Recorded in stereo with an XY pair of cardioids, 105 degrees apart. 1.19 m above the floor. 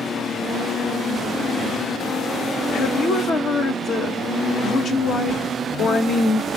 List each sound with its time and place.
2.7 s a woman speaking: 55° left, 1.0 m